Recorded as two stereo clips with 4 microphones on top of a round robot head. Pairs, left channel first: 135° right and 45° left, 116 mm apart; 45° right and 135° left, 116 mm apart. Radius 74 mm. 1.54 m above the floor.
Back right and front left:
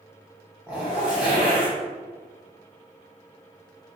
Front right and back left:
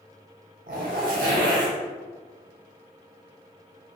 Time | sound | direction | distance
0.7 | a zipper | 130° left | 0.9 m